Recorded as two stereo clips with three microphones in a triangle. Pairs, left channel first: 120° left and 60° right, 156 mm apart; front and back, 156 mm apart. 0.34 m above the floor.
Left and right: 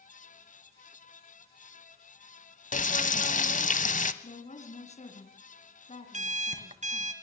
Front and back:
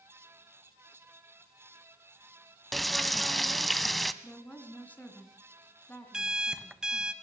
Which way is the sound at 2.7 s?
90° left.